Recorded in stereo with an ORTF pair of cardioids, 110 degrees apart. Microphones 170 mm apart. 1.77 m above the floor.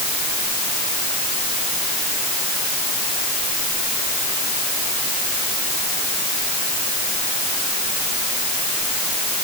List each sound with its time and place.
Only background noise.